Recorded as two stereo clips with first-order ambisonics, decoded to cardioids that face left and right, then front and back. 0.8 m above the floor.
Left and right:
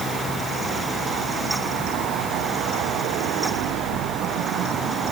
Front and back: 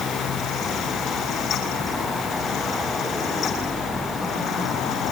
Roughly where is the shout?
I don't hear a shout.